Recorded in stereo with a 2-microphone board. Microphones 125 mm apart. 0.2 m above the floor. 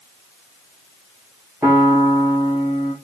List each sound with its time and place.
1.6 s a piano: 10° right (ahead or behind), 4.5 m